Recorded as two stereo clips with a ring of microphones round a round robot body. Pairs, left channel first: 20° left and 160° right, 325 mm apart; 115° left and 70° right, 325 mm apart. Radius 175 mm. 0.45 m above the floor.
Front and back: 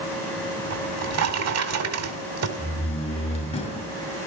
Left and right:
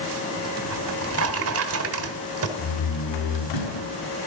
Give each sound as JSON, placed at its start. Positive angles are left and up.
{"t": 0.7, "sound": "a drawer", "azimuth_deg": -115, "distance_m": 2.5}
{"t": 2.6, "sound": "a door slam", "azimuth_deg": 95, "distance_m": 6.0}